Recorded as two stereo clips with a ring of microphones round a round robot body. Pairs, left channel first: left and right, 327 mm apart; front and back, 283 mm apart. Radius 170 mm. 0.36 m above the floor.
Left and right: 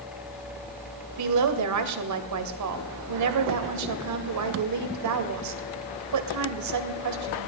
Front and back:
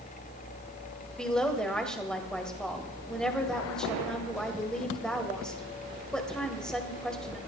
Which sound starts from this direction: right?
A woman speaking, at 1.2 s.